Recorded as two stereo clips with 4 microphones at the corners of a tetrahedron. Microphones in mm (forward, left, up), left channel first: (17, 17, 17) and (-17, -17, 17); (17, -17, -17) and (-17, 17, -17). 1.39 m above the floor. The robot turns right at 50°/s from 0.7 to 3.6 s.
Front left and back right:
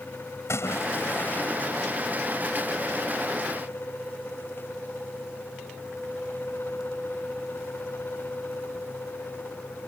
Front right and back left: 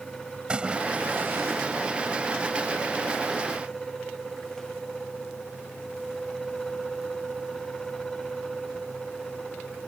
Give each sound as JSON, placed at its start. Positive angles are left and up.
{"t": 0.5, "sound": "a splash", "azimuth_deg": 65}